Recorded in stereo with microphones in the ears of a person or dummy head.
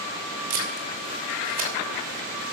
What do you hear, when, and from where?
0.5 s tape being pulled: 45° right (ahead or behind), 3 m